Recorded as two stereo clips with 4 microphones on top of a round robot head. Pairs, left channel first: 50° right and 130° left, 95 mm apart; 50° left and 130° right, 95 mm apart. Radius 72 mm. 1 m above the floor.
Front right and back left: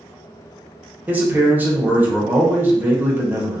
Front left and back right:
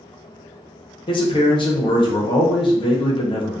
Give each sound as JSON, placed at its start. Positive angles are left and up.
{"t": 1.1, "sound": "a man speaking", "azimuth_deg": 60, "distance_m": 0.7}